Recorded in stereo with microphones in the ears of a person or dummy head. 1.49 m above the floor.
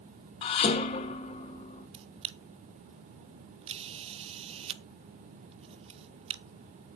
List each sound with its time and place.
0.4 s dishes clattering: 35° left (ahead or behind), 1.5 m
1.9 s a camera shutter: 30° right (ahead or behind), 0.6 m